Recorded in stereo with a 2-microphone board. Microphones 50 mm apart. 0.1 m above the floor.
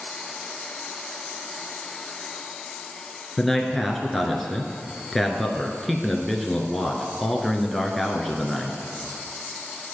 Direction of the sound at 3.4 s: Centre (ahead or behind).